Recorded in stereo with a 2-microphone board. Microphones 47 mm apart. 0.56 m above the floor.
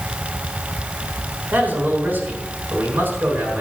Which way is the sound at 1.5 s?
45° right (ahead or behind).